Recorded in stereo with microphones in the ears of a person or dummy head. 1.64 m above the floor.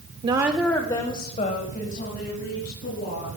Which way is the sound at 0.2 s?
35° right (ahead or behind).